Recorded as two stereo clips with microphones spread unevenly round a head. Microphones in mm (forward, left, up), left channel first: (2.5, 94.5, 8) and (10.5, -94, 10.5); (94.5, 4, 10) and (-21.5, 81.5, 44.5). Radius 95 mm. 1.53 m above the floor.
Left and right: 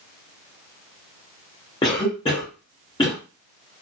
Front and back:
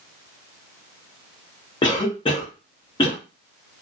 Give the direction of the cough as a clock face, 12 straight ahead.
11 o'clock.